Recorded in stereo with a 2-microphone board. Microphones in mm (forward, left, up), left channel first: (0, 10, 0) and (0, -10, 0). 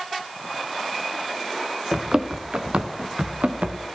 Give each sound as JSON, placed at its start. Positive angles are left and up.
{"t": 1.9, "sound": "running footsteps", "side_deg": -35, "distance_m": 1.6}